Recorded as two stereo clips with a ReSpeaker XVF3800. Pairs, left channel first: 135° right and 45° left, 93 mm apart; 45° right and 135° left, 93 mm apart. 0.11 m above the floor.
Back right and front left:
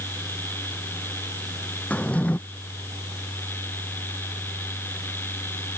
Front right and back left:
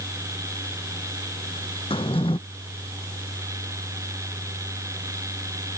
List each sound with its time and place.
1.9 s a drawer: 60° right